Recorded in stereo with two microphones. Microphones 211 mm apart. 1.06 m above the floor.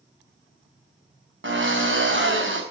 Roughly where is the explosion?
No explosion in this recording.